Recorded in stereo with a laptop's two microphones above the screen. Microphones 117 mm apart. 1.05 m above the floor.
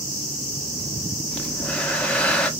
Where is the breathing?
10° left (ahead or behind), 0.8 m.